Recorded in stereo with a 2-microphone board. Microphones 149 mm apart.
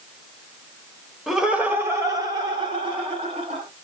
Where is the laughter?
Centre (ahead or behind), 1.0 m; by 3.6 s 40° right (ahead or behind), 2 m.